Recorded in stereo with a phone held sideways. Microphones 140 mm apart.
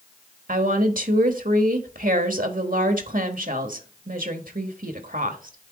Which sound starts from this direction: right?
A woman speaking, at 0.5 s.